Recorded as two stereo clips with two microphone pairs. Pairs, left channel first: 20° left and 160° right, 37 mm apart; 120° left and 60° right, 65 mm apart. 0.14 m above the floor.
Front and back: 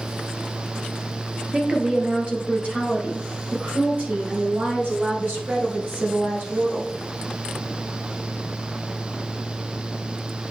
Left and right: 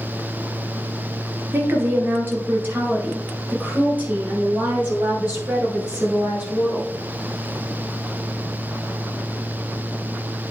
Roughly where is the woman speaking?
Right.